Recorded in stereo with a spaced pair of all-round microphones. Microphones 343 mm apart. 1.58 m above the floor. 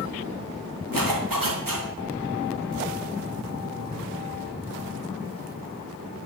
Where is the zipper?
75° right (ahead or behind), 3 m.